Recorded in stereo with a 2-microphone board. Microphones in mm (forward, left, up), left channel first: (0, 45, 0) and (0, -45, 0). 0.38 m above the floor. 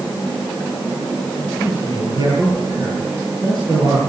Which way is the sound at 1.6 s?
50° right (ahead or behind).